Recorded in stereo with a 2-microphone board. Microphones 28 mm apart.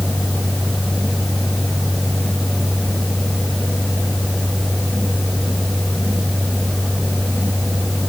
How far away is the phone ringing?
No phone ringing in this recording.